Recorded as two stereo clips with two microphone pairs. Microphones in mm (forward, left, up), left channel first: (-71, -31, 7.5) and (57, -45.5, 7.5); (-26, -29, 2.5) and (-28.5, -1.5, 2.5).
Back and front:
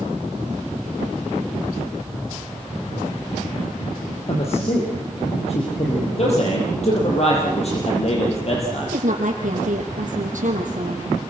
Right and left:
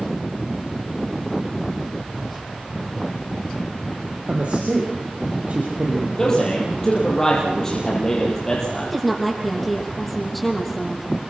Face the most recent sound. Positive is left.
turn(degrees=10)